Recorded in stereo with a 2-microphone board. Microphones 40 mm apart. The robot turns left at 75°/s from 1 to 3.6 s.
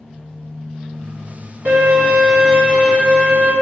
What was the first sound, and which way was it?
A violin, 110° right.